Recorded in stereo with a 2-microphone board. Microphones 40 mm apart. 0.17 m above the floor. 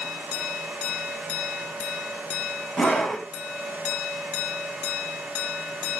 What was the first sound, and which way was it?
A scream, 20° left (ahead or behind).